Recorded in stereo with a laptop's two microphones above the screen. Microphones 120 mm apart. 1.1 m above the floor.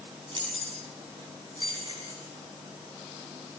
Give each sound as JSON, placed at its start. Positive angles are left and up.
{"t": 0.3, "sound": "keys jangling", "side_deg": -45, "distance_m": 8.0}